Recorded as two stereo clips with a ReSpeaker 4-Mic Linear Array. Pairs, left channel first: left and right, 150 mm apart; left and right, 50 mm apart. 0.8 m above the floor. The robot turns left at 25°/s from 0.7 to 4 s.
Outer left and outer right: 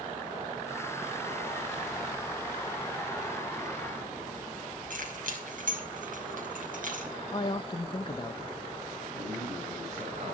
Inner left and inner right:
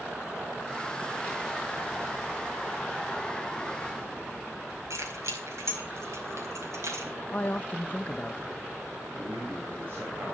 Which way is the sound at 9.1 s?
45° right (ahead or behind).